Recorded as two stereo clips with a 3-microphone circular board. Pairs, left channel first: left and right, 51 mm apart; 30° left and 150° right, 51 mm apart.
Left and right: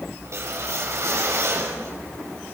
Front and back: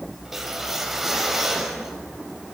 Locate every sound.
0.2 s a whoosh: 65° right, 3.5 m